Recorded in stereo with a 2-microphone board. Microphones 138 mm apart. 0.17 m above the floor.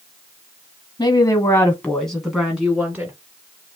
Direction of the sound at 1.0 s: 30° left (ahead or behind).